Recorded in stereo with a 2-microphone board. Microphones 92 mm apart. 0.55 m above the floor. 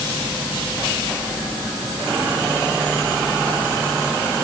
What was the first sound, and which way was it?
Only background noise.